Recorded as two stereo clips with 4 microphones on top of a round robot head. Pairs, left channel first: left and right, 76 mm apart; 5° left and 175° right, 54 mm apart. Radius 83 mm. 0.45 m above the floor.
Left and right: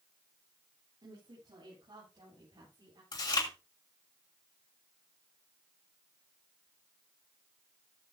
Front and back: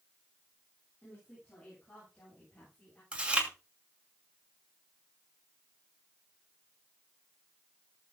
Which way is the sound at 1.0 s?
60° right.